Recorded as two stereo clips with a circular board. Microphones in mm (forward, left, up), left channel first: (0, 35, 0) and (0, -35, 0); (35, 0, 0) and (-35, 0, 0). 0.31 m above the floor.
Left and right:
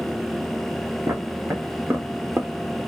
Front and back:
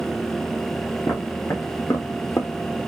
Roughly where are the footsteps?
Ahead right.